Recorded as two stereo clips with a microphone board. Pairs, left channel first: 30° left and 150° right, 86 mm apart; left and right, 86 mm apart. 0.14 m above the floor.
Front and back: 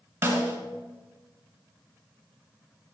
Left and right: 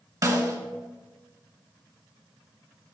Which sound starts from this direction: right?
A snare drum, at 0.2 s.